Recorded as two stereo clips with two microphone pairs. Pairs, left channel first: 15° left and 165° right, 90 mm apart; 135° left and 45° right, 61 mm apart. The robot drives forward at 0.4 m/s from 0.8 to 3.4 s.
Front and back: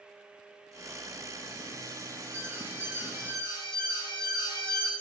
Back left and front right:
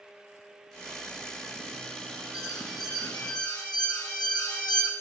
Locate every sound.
2.3 s an alarm: 125° left, 1.5 m; by 4.9 s 135° left, 1.8 m